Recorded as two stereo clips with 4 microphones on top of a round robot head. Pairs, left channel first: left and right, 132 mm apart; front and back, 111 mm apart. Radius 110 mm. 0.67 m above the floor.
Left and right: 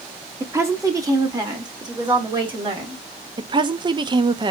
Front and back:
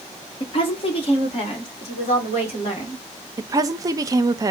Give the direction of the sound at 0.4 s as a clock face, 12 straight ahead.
1 o'clock.